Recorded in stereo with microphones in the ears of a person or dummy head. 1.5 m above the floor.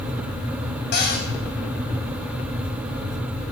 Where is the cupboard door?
50° left (ahead or behind), 2.5 m.